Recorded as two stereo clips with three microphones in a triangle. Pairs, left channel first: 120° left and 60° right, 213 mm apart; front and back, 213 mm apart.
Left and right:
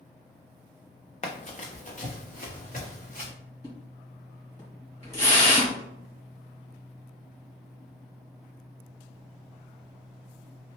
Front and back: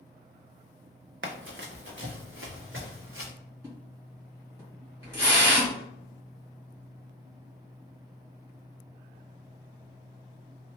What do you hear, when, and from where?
1.2 s running footsteps: 170° left, 0.6 m; by 3.3 s 165° left, 1.8 m
3.6 s a splash: 115° left, 1.8 m